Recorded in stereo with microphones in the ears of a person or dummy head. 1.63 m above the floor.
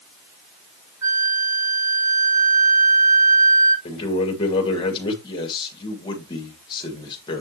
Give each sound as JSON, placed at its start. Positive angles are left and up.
{"t": 1.0, "sound": "a flute", "side_deg": -15, "distance_m": 4.0}
{"t": 3.9, "sound": "a man speaking", "side_deg": 25, "distance_m": 2.0}
{"t": 5.2, "sound": "a man speaking", "side_deg": 25, "distance_m": 2.0}